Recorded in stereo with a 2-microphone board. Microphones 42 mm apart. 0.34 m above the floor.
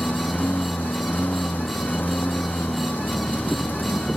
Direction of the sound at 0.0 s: 50° left (ahead or behind).